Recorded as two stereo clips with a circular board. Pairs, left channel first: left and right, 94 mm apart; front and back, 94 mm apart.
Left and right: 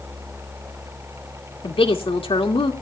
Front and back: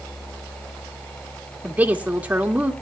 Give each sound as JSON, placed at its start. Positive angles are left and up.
{"t": 1.6, "sound": "a woman speaking", "azimuth_deg": 105, "distance_m": 2.5}